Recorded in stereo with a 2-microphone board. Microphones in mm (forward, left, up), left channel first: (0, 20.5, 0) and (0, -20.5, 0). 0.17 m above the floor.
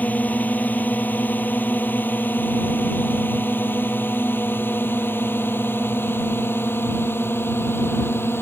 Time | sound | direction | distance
0.0 | a drone | 45° left (ahead or behind) | ?